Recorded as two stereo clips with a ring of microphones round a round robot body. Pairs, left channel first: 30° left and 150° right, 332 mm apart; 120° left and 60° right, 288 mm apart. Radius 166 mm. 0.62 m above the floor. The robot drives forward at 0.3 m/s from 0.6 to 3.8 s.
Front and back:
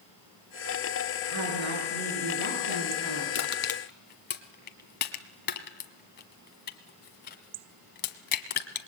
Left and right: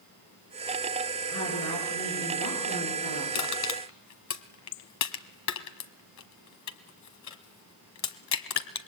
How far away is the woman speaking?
About 9.5 m.